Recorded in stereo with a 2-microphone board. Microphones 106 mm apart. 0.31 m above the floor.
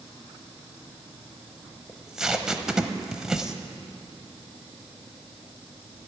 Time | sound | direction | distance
1.9 | tape being pulled | 5° right (ahead or behind) | 0.6 m